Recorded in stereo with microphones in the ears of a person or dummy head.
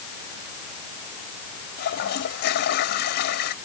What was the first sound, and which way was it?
A toilet flushing, 55° left (ahead or behind).